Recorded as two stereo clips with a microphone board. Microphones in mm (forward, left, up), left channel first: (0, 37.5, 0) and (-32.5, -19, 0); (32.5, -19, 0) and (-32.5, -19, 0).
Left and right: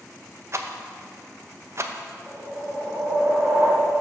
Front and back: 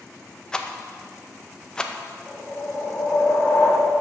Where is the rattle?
80° right, 0.6 m.